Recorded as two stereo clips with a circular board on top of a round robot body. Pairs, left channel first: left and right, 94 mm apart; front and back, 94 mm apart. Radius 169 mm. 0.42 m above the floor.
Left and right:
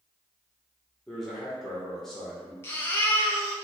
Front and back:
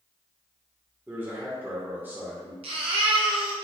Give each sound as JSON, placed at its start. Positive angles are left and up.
{"t": 1.1, "sound": "a man speaking", "azimuth_deg": 170, "distance_m": 1.3}
{"t": 2.6, "sound": "a baby crying", "azimuth_deg": 155, "distance_m": 0.5}